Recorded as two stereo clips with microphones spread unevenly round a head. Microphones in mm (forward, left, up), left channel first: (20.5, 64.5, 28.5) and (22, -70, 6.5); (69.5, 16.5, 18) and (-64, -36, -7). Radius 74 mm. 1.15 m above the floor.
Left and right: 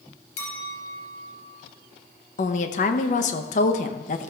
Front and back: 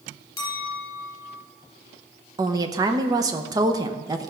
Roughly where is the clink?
Left.